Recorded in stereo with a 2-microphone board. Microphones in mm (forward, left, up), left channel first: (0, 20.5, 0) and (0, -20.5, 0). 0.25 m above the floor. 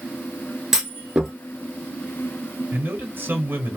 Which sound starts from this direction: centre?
A clunk, at 0.7 s.